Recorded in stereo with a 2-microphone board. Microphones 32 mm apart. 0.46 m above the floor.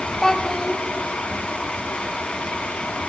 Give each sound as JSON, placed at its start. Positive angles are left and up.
{"t": 0.2, "sound": "a child speaking", "side_deg": 15, "distance_m": 3.0}